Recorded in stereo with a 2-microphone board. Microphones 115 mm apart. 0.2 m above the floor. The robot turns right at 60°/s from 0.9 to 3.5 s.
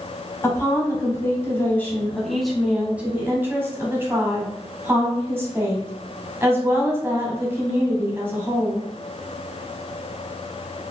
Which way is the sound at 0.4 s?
25° left (ahead or behind).